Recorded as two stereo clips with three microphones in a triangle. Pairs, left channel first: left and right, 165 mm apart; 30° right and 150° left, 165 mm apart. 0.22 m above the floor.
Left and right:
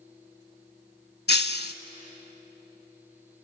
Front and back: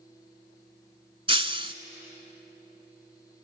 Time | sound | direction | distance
1.3 | breaking glass | 95° left | 0.6 m